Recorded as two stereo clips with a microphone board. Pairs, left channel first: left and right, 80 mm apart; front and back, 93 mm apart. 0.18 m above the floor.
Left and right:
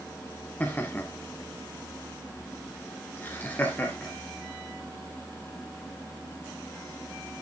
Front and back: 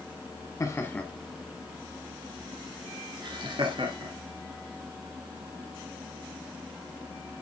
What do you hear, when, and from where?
0.6 s laughter: 35° left, 1.2 m; by 4.1 s 155° left, 3 m